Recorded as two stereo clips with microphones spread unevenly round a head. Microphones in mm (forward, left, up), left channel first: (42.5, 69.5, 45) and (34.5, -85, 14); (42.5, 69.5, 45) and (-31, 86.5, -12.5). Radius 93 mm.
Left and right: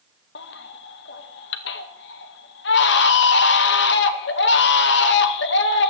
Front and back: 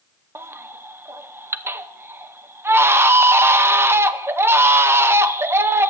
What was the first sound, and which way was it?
A baby crying, 95° left.